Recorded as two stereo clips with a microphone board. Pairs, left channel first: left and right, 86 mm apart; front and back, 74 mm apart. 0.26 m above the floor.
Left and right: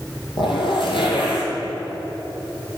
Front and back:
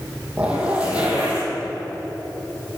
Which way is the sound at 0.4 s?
105° left.